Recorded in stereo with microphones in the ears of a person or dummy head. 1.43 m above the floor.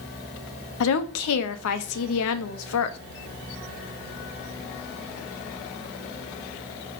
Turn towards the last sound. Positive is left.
turn(degrees=70)  # may be behind; listen again after turning